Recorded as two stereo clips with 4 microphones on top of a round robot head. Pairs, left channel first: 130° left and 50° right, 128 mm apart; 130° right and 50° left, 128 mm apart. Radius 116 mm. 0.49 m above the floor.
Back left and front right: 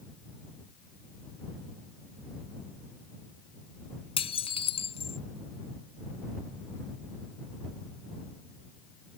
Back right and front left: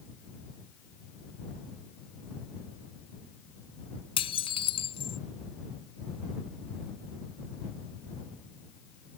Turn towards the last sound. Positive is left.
turn(degrees=180)